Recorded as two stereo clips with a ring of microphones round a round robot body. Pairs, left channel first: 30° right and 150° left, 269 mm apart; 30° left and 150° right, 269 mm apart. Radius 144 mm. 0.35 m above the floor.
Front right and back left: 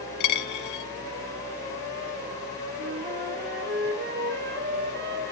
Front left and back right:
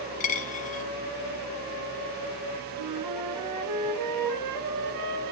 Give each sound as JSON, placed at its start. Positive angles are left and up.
{"t": 0.2, "sound": "a dropped coin", "azimuth_deg": -30, "distance_m": 1.4}
{"t": 2.8, "sound": "a flute", "azimuth_deg": -160, "distance_m": 1.8}